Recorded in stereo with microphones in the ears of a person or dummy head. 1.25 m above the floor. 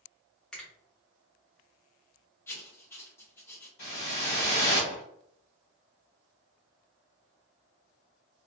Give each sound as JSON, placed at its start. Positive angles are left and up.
{"t": 0.5, "sound": "a finger snap", "side_deg": 0, "distance_m": 0.8}
{"t": 2.5, "sound": "writing", "side_deg": 10, "distance_m": 0.5}
{"t": 3.8, "sound": "a whoosh", "side_deg": 30, "distance_m": 1.3}